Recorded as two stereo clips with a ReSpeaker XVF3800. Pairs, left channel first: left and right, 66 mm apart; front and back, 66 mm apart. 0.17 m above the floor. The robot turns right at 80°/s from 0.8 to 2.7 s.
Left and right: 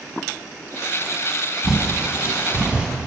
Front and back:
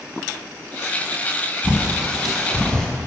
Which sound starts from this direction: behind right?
A bird, at 1.6 s.